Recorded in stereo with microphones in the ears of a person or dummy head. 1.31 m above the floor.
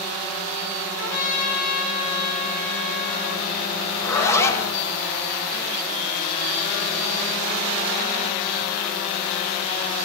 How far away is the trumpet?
About 4.5 m.